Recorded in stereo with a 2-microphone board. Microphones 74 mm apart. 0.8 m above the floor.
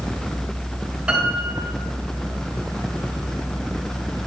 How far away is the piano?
About 4 m.